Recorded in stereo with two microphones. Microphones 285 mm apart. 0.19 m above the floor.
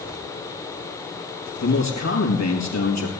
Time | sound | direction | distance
1.6 | a man speaking | 70° left (ahead or behind) | 4.5 m